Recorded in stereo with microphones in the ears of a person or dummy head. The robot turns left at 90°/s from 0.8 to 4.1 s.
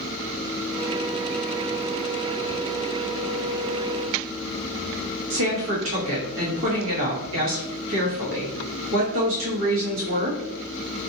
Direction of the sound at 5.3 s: 65° right (ahead or behind).